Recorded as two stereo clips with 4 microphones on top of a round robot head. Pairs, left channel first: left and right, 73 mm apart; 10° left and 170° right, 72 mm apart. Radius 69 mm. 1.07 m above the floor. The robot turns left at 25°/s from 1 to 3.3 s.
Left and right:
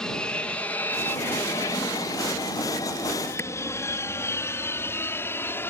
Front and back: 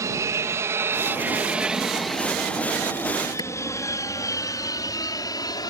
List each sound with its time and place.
0.0 s an aircraft: 170° left; by 5.7 s 35° left
3.4 s a clap: 35° left